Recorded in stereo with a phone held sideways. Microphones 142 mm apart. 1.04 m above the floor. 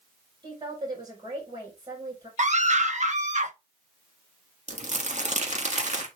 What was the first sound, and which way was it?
A woman speaking, 35° right (ahead or behind).